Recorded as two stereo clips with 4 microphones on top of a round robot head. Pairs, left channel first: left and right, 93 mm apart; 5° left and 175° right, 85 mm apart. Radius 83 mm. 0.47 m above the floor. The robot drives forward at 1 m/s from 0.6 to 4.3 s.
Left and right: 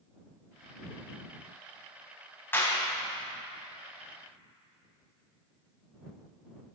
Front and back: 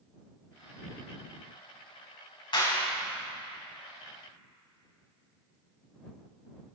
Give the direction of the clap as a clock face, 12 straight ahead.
11 o'clock.